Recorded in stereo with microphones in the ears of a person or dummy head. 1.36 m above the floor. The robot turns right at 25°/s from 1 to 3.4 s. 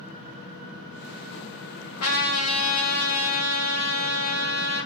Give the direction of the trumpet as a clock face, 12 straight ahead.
9 o'clock.